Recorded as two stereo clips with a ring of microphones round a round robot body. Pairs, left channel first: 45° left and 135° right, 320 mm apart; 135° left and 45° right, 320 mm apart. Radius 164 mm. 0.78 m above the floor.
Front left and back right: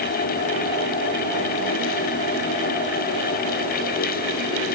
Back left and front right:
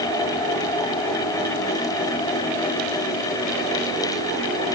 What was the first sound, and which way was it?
Only background noise.